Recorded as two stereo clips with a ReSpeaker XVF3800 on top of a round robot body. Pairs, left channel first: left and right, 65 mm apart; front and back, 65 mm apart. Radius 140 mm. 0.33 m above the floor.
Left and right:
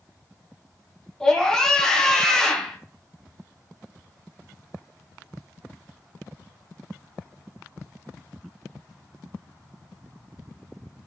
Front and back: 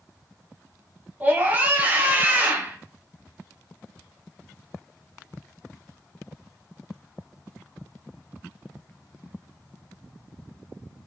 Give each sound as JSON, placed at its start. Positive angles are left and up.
{"t": 1.2, "sound": "a scream", "azimuth_deg": 160, "distance_m": 1.0}